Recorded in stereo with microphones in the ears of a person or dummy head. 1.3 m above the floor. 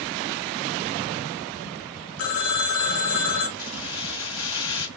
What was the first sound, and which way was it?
A phone ringing, 80° left.